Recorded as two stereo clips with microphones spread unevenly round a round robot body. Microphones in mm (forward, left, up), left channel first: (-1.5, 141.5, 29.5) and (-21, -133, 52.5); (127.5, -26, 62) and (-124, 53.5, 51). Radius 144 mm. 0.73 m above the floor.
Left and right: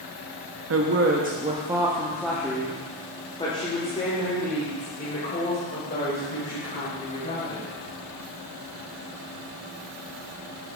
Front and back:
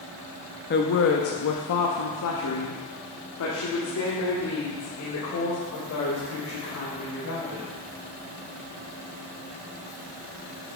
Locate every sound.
0.7 s a woman speaking: 65° right, 0.9 m; by 7.8 s 30° left, 4.5 m